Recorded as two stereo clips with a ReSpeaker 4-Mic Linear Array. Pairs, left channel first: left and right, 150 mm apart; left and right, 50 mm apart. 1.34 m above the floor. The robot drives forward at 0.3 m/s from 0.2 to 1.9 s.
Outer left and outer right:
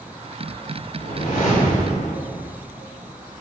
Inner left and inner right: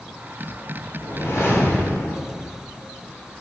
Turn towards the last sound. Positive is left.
turn(degrees=65)  # may be behind; listen again after turning